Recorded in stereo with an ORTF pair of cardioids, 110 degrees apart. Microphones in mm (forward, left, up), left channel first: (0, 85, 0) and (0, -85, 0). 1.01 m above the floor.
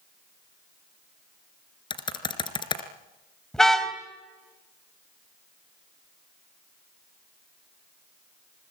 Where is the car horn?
5° left, 3 m.